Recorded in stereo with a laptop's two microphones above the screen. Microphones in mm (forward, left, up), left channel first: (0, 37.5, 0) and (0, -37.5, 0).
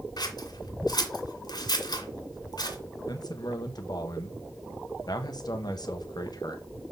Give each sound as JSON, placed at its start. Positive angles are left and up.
{"t": 0.2, "sound": "scissors", "side_deg": 65, "distance_m": 1.9}
{"t": 3.1, "sound": "a man speaking", "side_deg": 60, "distance_m": 1.1}